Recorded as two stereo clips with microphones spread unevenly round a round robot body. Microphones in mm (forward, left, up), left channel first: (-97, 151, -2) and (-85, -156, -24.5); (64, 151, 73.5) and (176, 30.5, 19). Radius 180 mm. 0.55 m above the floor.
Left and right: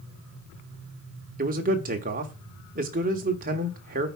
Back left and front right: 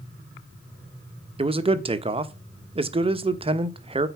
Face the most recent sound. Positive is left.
turn(degrees=-30)